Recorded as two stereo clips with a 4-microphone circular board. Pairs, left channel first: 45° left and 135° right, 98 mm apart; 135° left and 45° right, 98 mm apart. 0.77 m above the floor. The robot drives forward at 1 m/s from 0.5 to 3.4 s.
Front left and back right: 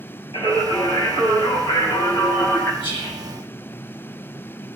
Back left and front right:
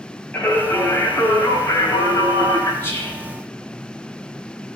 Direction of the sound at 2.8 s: 70° left.